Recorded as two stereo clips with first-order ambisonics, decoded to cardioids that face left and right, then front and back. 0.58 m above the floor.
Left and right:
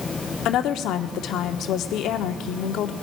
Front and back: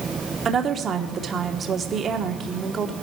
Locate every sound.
0.5 s a woman speaking: 120° left, 0.9 m